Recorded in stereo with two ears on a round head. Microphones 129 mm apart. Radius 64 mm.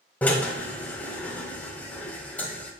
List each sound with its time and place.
0.2 s a drill: 10° left (ahead or behind), 1.5 m